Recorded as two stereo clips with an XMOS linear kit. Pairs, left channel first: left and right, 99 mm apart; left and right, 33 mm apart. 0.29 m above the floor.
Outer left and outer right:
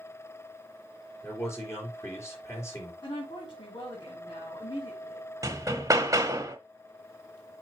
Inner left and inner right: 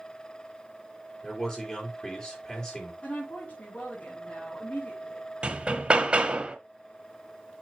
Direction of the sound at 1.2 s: 25° left (ahead or behind).